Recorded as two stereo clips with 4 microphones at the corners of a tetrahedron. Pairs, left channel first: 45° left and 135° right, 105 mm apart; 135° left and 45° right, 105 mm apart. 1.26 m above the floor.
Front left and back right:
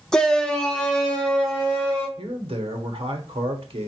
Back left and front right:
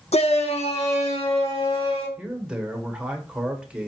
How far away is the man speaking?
About 1.1 m.